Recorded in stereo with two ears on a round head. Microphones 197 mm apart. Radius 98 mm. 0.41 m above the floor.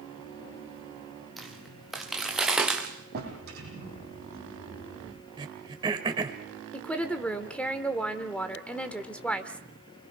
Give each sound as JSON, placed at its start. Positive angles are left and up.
{"t": 1.4, "sound": "footsteps", "side_deg": 0, "distance_m": 4.0}
{"t": 3.1, "sound": "a drawer", "side_deg": -45, "distance_m": 7.0}
{"t": 5.4, "sound": "throat clearing", "side_deg": -20, "distance_m": 1.8}
{"t": 6.7, "sound": "a woman speaking", "side_deg": 5, "distance_m": 1.2}